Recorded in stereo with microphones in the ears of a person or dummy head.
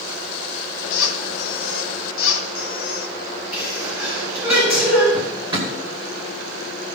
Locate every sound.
0.9 s a squeak: 75° left (ahead or behind), 1.4 m
3.5 s a sneeze: 10° right (ahead or behind), 5.5 m
5.1 s a drawer: 25° right (ahead or behind), 2.5 m